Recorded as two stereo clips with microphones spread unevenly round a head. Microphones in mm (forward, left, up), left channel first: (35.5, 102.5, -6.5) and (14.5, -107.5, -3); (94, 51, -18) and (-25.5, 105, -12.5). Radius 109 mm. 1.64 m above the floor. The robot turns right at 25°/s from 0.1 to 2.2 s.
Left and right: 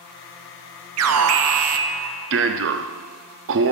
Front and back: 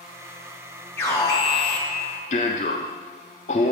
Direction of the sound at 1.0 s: 100° right.